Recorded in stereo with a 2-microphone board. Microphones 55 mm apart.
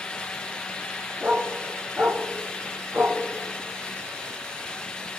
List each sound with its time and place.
1.2 s a dog barking: 20° right (ahead or behind), 5.5 m; by 3.2 s 45° right (ahead or behind), 3 m